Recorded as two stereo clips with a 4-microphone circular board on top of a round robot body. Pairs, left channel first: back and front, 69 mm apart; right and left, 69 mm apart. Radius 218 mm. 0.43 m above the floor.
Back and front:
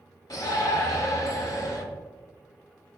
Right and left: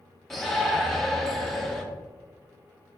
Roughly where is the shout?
Behind.